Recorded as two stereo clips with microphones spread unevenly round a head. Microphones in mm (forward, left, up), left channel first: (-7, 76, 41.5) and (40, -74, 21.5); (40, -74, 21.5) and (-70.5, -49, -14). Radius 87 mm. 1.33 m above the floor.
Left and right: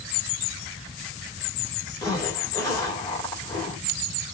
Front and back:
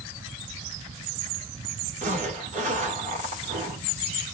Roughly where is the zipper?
Behind.